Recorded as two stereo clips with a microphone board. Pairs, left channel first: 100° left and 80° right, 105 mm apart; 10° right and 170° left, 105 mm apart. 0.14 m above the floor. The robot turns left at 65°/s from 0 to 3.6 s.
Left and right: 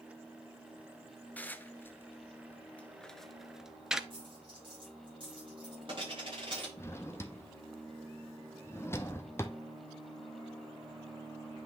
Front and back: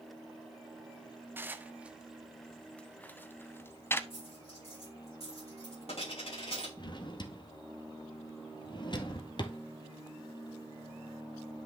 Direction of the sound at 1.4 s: 140° left.